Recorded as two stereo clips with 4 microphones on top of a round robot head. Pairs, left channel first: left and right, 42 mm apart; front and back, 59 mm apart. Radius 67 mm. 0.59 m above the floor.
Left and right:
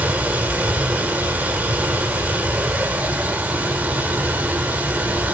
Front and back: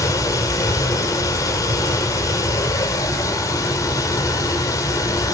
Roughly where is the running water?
Ahead right.